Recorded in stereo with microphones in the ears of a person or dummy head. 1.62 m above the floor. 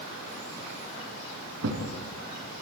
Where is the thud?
75° right (ahead or behind), 5 m.